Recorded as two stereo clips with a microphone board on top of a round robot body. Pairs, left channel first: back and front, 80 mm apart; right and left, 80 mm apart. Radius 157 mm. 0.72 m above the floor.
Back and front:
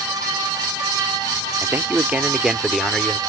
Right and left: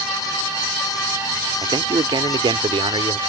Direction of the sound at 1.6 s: 60° left.